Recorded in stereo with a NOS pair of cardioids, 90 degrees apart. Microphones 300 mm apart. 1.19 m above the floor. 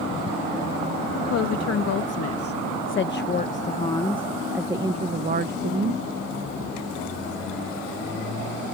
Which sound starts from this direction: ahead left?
A woman speaking, at 1.2 s.